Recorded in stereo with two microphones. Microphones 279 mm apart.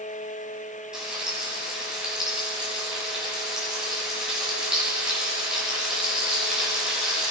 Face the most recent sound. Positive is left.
turn(degrees=-5)  # may be behind; listen again after turning